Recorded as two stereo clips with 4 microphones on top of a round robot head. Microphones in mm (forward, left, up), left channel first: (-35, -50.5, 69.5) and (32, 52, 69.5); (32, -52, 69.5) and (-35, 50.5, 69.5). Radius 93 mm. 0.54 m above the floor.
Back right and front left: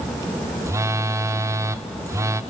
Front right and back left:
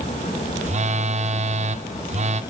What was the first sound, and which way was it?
A phone buzzing, 120° left.